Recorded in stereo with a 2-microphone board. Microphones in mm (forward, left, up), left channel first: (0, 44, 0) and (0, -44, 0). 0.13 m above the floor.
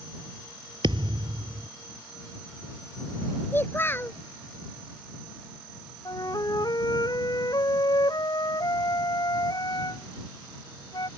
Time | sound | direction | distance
0.8 | a thud | 65° right (ahead or behind) | ?
3.5 | a child speaking | 25° left (ahead or behind) | ?
6.0 | a flute | 50° left (ahead or behind) | ?